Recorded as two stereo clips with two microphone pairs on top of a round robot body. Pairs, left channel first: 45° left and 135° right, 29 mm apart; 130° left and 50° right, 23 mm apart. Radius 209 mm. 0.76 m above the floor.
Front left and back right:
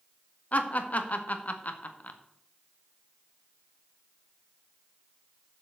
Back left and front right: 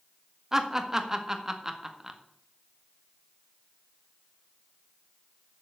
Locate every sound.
0.5 s laughter: 20° left, 2.0 m